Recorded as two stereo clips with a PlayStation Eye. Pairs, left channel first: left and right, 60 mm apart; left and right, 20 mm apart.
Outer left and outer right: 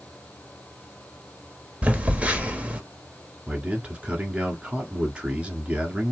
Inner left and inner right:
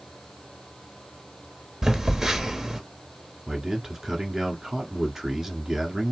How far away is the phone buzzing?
About 1.3 m.